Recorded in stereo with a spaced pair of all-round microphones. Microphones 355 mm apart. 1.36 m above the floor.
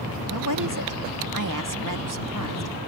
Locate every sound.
0.3 s a woman speaking: 60° right (ahead or behind)